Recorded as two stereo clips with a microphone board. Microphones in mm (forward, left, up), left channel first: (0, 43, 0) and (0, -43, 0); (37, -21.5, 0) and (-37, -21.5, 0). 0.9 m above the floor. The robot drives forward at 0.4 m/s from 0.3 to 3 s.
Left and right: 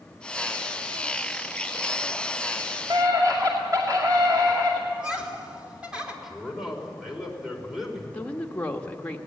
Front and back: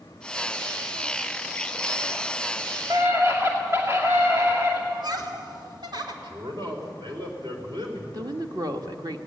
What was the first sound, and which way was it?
A scream, 130° right.